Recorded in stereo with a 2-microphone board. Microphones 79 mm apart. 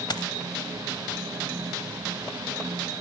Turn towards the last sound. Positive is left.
turn(degrees=65)  # may be behind; listen again after turning